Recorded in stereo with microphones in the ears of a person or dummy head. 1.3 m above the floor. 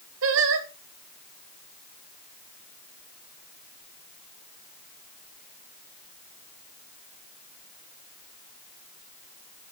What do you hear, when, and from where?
0.2 s singing: 70° right (ahead or behind), 1.8 m